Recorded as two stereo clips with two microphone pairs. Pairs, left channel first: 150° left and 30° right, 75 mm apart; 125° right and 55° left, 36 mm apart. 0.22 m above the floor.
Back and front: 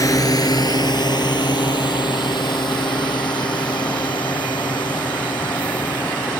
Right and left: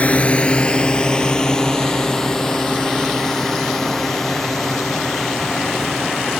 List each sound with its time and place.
0.0 s a drone: 170° right; by 6.4 s 150° left